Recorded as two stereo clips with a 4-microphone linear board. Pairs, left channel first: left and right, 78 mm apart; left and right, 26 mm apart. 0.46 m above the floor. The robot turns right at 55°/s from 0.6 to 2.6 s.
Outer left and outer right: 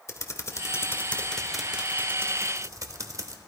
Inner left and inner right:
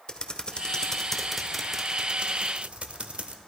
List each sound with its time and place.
0.1 s typing on a keyboard: 130° left, 0.9 m; by 3.4 s 120° right, 0.9 m